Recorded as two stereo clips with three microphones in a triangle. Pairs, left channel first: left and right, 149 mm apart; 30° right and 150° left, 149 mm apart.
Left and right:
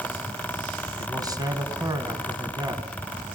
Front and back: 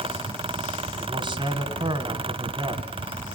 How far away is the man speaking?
About 2.5 m.